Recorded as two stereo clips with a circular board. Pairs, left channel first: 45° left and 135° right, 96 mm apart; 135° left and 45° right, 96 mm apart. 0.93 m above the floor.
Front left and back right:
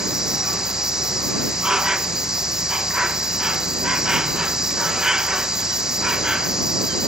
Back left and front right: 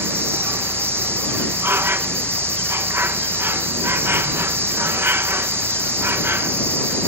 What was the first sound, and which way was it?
An insect, 60° right.